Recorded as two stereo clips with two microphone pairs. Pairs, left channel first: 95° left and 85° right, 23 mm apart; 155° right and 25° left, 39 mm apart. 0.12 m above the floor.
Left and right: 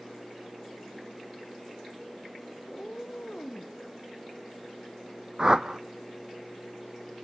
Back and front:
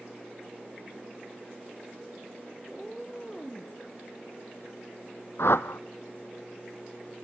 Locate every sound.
2.7 s a cat meowing: 120° left, 1.7 m
5.4 s a whoosh: 140° right, 0.8 m